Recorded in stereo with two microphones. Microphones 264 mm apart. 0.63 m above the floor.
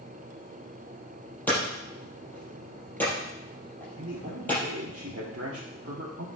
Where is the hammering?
5° left (ahead or behind), 6 m.